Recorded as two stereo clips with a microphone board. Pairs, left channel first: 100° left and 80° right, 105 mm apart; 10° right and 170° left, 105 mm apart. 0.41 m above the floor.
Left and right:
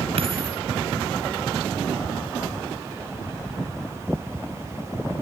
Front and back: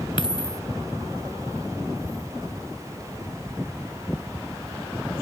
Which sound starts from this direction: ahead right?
A dropped coin, at 0.2 s.